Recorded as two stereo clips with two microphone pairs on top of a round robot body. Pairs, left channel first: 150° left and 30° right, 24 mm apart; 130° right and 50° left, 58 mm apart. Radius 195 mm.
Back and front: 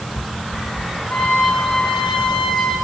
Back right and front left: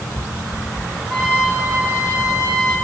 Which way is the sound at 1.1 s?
130° left.